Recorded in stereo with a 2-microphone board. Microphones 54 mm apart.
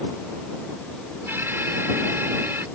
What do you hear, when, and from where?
1.3 s an alarm: 45° right (ahead or behind)